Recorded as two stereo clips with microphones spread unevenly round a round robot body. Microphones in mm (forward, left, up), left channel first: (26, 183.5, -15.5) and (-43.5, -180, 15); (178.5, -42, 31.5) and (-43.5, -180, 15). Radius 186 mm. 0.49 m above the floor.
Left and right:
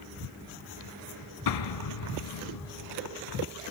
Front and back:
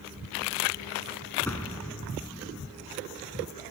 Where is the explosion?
115° left, 1.1 m.